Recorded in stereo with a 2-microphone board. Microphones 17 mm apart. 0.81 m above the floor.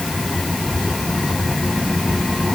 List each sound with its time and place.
Only background noise.